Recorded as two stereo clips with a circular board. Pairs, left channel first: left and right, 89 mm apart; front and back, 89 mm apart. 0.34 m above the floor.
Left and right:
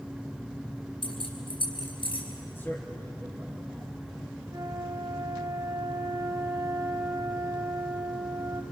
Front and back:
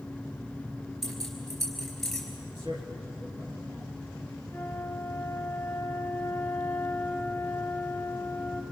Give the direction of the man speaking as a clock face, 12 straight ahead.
7 o'clock.